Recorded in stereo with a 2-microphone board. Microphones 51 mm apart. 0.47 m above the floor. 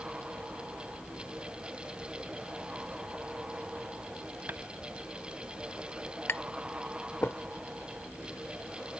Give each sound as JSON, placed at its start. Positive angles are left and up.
{"t": 4.5, "sound": "tapping", "side_deg": -35}
{"t": 6.3, "sound": "tapping", "side_deg": 50}